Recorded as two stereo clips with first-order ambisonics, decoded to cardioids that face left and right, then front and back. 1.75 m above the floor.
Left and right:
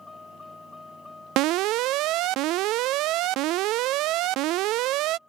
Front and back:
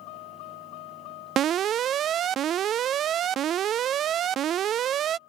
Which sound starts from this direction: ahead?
A vehicle, at 0.0 s.